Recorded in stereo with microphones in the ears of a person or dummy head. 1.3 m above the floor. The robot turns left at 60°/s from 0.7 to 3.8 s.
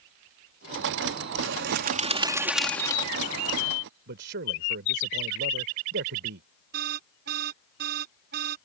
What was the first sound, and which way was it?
A bird, 105° right.